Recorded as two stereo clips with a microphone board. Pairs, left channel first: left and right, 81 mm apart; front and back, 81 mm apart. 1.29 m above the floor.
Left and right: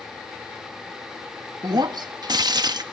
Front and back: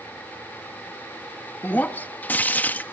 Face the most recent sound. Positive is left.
turn(degrees=-65)